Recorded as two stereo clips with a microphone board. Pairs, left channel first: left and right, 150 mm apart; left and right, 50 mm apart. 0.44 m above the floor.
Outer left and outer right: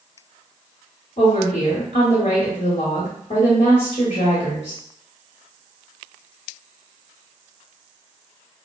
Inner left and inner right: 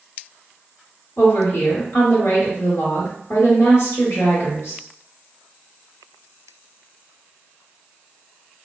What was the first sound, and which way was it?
A woman speaking, 50° left (ahead or behind).